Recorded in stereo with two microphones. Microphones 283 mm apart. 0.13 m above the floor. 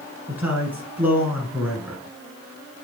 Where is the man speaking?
5° right (ahead or behind), 1.2 m.